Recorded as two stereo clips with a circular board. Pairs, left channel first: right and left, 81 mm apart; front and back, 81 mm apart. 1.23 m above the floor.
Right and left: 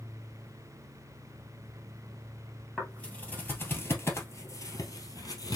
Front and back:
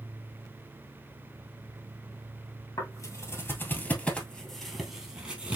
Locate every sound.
2.8 s footsteps: 15° right, 1.6 m; by 5.6 s 115° right, 1.8 m